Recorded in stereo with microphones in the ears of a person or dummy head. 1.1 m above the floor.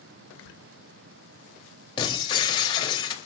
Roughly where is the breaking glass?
Centre.